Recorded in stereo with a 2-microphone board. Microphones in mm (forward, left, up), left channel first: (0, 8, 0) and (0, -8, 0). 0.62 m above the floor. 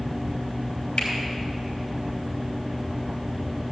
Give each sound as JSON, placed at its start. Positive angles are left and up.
{"t": 1.0, "sound": "a finger snap", "side_deg": 80, "distance_m": 5.0}